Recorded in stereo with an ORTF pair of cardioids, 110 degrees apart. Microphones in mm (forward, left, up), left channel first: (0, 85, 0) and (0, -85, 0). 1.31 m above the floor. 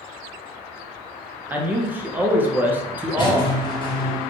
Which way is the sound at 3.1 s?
30° left.